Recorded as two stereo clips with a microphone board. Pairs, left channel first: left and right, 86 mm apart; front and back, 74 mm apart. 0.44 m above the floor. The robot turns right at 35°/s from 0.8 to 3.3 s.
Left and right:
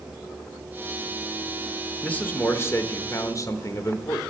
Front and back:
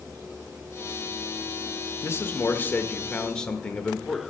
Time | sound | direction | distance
2.0 | a man speaking | 25° left | 0.9 m